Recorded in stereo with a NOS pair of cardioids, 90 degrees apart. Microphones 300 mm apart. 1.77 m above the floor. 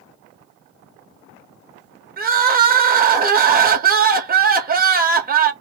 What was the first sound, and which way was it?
Crying, 30° right.